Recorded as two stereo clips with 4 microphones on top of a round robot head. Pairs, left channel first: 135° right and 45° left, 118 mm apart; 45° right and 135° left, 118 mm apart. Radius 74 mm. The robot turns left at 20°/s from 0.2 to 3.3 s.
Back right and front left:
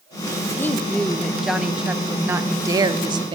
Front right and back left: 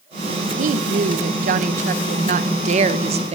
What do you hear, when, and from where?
0.6 s a woman speaking: 150° left, 0.6 m; by 3.4 s 95° left, 0.6 m